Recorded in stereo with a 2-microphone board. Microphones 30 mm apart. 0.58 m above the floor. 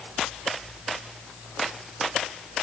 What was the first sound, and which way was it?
Only background noise.